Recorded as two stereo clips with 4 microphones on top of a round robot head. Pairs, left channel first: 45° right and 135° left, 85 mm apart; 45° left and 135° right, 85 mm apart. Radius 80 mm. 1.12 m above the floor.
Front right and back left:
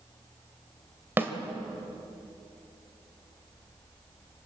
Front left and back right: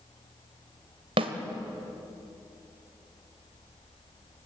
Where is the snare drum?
160° right, 1.7 m.